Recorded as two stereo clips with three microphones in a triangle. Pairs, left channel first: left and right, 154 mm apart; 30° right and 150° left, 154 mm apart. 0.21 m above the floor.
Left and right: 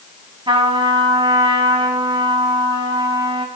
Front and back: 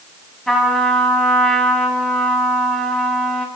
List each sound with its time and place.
0.5 s a trumpet: 115° right, 1.8 m